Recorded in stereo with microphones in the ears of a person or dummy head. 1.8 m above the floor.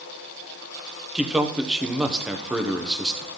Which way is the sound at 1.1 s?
5° right (ahead or behind).